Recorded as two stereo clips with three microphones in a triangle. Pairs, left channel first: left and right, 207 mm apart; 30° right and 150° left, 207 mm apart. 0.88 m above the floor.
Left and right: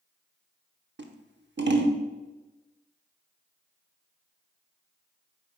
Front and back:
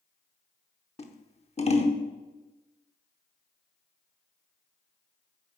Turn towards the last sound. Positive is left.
turn(degrees=-85)